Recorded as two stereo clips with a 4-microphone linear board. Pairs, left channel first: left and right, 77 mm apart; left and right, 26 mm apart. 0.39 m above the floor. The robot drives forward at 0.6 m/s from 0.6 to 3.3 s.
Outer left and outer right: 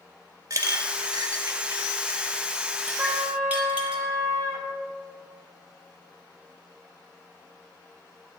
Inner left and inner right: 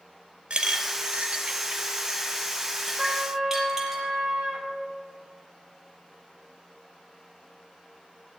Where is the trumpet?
40° right (ahead or behind), 2 m; by 4.7 s 35° right (ahead or behind), 2 m.